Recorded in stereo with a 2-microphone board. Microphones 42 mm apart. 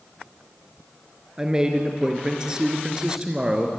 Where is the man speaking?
20° right (ahead or behind), 3 m.